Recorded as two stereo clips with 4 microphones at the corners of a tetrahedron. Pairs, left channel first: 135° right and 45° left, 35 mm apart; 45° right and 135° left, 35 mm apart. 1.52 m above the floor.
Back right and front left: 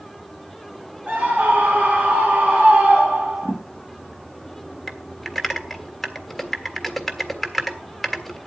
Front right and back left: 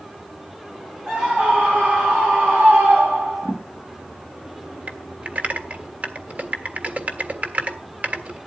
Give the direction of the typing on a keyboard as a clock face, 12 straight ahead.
7 o'clock.